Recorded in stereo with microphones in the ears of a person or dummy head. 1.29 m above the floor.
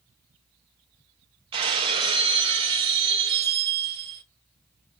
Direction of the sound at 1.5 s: 30° right (ahead or behind).